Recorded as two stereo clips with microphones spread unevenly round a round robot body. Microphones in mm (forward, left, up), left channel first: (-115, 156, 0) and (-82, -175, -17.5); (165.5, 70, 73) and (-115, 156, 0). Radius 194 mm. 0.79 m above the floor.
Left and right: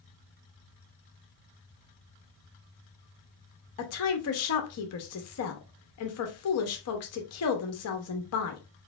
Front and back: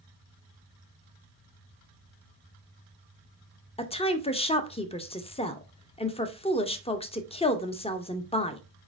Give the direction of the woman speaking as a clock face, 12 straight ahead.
10 o'clock.